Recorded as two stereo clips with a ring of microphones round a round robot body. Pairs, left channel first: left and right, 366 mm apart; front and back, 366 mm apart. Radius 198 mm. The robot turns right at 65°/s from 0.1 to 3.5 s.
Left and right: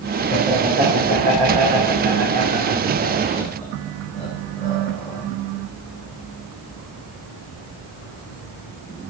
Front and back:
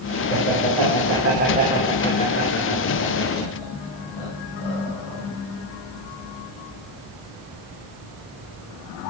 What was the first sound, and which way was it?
Laughter, 170° left.